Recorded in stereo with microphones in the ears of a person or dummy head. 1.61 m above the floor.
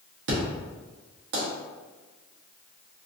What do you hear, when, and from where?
0.3 s an explosion: 60° right (ahead or behind), 1.1 m